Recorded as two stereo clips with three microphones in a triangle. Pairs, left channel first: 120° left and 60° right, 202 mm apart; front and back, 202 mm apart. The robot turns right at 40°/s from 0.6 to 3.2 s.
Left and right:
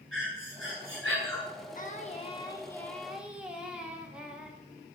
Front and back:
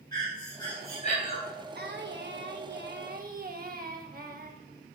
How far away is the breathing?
About 3 m.